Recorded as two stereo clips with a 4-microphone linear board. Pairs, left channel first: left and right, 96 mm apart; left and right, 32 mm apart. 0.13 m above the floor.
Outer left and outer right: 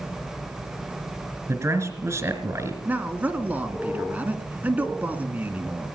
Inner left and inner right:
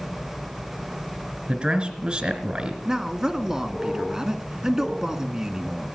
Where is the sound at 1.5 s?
25° right (ahead or behind), 2.0 m.